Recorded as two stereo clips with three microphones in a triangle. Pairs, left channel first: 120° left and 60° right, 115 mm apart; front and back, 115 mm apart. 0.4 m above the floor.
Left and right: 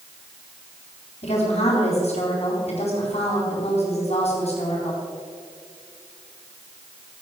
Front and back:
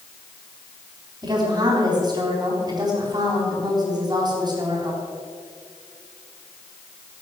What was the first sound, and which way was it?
A woman speaking, 130° left.